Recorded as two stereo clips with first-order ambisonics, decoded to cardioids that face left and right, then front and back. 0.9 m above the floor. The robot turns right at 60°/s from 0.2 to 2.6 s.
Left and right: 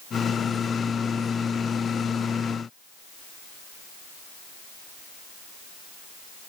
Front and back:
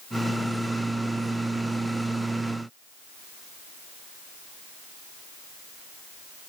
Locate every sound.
Only background noise.